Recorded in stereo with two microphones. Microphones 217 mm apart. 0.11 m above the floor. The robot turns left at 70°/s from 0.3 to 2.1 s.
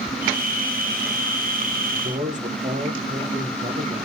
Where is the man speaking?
45° right (ahead or behind), 5.5 m; by 4.0 s 35° right (ahead or behind), 5.5 m.